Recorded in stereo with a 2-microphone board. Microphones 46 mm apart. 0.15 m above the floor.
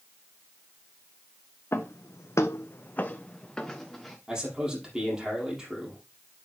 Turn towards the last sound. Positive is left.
turn(degrees=-15)  # may be behind; listen again after turning